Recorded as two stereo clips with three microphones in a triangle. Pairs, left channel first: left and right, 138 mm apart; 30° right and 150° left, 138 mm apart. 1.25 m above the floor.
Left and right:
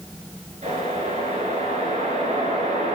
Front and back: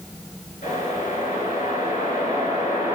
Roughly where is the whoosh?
Ahead right.